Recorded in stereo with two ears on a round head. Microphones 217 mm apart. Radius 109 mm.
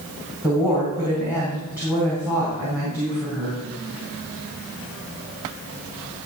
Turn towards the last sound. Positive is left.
turn(degrees=-5)  # may be behind; listen again after turning